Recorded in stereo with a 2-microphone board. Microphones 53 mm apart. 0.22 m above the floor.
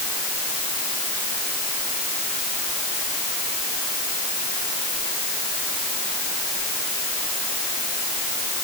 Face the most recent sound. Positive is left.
No sound to turn to.